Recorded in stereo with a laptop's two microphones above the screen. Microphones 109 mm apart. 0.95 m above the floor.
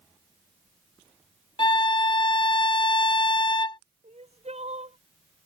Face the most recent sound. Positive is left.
turn(degrees=-75)  # may be behind; listen again after turning